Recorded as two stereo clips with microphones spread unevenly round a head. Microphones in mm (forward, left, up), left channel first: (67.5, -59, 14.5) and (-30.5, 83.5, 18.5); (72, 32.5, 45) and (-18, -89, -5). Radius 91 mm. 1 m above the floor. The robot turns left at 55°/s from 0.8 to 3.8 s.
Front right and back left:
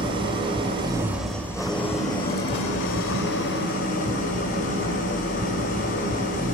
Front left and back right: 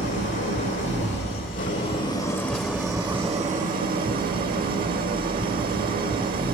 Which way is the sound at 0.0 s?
60° left.